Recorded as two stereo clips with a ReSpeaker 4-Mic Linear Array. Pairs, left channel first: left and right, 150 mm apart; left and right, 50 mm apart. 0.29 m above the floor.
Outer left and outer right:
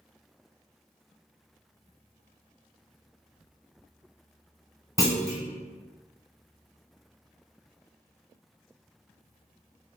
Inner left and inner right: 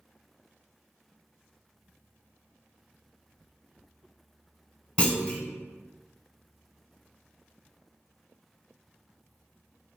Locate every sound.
5.0 s a clunk: 20° left (ahead or behind), 0.9 m